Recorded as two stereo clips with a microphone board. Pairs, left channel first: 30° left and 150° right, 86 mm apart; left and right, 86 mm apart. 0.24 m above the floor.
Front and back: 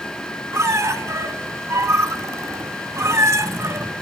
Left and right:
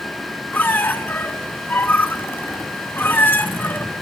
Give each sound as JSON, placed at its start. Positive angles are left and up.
{"t": 0.5, "sound": "a squeak", "azimuth_deg": 155, "distance_m": 0.6}